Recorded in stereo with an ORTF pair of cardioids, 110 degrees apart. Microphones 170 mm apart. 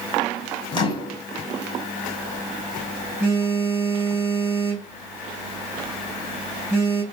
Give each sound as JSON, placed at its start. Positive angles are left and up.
{"t": 0.7, "sound": "a microwave", "azimuth_deg": 30, "distance_m": 1.0}
{"t": 2.0, "sound": "a phone buzzing", "azimuth_deg": -15, "distance_m": 1.8}